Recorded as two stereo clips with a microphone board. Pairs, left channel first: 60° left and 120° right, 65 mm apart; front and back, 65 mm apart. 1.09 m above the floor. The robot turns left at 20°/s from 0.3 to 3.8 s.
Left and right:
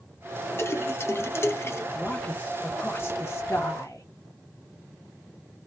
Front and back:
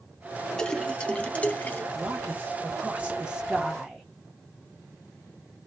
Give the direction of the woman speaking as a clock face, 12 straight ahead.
8 o'clock.